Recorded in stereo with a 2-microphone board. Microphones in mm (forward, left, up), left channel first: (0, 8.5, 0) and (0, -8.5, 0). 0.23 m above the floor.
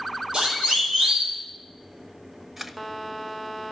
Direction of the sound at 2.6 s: 15° right (ahead or behind).